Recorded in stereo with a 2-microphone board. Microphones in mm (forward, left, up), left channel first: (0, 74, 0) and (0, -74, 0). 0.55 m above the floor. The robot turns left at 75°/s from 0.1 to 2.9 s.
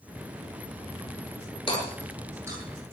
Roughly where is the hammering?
Left.